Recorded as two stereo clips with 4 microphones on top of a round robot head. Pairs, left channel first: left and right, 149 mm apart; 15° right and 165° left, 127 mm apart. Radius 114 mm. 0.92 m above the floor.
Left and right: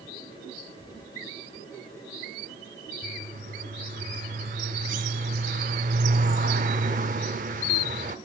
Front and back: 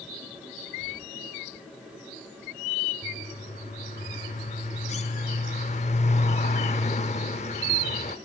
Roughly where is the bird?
Ahead right.